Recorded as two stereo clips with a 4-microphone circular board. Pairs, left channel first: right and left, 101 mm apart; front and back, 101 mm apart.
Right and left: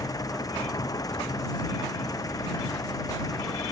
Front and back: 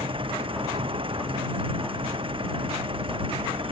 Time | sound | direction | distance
0.0 | an engine running | 145° right | ?